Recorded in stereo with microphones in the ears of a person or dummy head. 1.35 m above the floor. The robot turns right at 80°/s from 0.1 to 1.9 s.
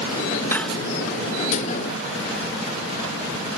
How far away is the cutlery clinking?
About 0.8 m.